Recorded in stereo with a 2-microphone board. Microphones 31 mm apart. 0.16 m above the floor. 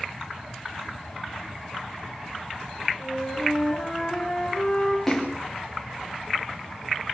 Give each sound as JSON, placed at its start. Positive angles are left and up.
{"t": 3.0, "sound": "a flute", "side_deg": 5, "distance_m": 8.5}
{"t": 5.1, "sound": "a splash", "side_deg": 10, "distance_m": 4.5}